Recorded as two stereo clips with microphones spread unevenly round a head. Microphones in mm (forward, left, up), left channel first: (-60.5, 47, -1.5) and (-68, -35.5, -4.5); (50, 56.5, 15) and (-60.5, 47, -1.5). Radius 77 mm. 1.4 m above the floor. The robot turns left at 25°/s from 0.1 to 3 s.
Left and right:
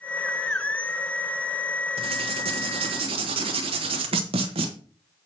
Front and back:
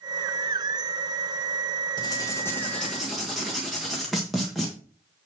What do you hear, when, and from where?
2.0 s writing: 60° right, 1.4 m; by 4.7 s 85° right, 1.4 m